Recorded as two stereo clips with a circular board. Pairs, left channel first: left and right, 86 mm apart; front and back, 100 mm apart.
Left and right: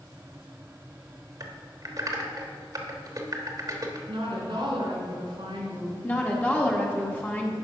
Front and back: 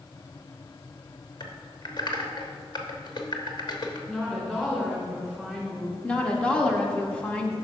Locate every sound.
1.4 s typing on a keyboard: 45° right, 1.0 m
4.1 s a woman speaking: 80° right, 2.5 m
6.0 s a woman speaking: 60° left, 1.1 m